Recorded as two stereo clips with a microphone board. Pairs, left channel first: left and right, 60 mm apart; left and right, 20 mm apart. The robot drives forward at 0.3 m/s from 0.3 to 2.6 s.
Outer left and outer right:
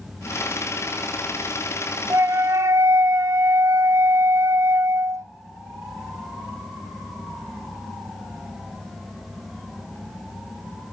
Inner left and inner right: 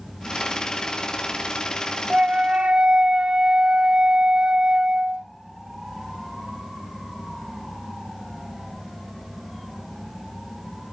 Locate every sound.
2.1 s a flute: 50° right (ahead or behind), 0.5 m; by 5.2 s 55° right (ahead or behind), 0.5 m